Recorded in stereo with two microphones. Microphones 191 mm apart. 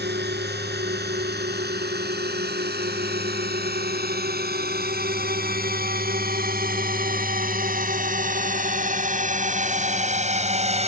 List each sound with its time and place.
0.0 s a drone: 60° right (ahead or behind); by 10.9 s 35° right (ahead or behind)